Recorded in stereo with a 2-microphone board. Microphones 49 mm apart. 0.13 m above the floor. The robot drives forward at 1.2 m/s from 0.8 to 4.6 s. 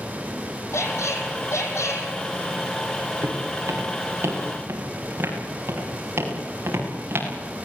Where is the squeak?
75° left (ahead or behind), 4 m.